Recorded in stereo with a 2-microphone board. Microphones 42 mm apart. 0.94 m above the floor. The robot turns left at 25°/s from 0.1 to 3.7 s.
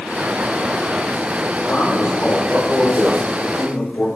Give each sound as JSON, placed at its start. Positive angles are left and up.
{"t": 1.6, "sound": "a man speaking", "azimuth_deg": 130, "distance_m": 3.0}